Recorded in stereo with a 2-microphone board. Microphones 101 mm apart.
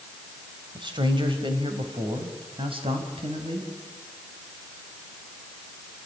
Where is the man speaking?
50° right (ahead or behind), 3 m; by 3.7 s 65° right (ahead or behind), 5 m.